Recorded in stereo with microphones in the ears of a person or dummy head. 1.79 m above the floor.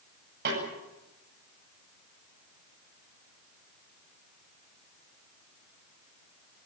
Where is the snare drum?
55° right (ahead or behind), 10 m.